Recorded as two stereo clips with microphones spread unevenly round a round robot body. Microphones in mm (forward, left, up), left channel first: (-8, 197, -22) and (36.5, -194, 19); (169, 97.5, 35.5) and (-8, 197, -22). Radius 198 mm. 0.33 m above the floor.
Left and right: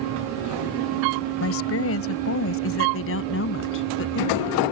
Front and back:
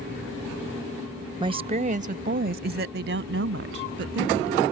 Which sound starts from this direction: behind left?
A woman speaking, at 1.4 s.